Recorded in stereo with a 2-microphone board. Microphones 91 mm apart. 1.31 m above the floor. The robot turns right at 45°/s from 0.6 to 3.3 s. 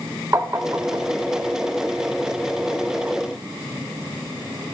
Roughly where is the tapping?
Right.